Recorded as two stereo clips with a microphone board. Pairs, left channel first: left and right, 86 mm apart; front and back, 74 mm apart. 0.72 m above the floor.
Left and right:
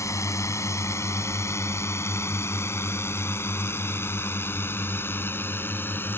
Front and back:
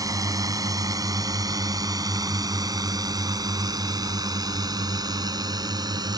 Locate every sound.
0.0 s a drone: 145° left; by 6.2 s 155° left